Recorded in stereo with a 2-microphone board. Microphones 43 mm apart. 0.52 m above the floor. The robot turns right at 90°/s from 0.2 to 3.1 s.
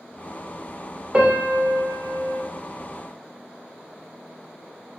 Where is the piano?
155° right, 0.7 m; by 2.4 s 35° right, 0.7 m.